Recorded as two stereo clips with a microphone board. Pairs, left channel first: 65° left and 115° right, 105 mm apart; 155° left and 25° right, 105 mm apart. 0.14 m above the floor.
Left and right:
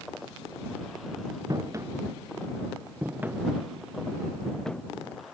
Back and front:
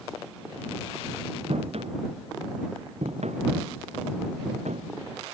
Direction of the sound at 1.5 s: 50° right.